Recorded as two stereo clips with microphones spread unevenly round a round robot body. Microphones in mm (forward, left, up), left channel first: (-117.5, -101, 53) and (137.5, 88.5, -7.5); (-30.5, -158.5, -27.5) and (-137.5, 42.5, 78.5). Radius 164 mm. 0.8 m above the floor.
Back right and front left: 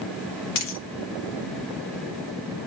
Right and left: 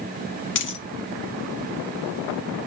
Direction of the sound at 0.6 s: 110° right.